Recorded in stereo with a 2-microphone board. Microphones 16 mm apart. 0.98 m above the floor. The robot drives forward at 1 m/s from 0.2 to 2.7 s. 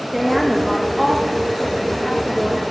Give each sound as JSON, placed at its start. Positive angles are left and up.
{"t": 0.1, "sound": "a woman speaking", "side_deg": -10, "distance_m": 1.0}